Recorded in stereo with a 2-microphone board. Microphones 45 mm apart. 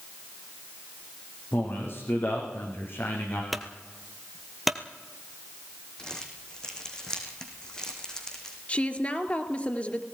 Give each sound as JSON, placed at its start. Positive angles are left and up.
{"t": 1.5, "sound": "a man speaking", "side_deg": 60, "distance_m": 7.0}
{"t": 3.5, "sound": "a clunk", "side_deg": 0, "distance_m": 1.6}
{"t": 6.0, "sound": "crumpling", "side_deg": 15, "distance_m": 4.0}
{"t": 8.7, "sound": "a woman speaking", "side_deg": 30, "distance_m": 2.5}